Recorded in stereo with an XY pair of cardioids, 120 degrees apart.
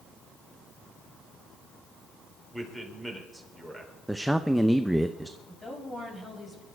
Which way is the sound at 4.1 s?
5° right.